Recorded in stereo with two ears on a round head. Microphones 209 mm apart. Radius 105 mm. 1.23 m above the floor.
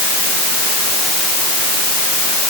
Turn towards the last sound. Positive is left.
No sound to turn to.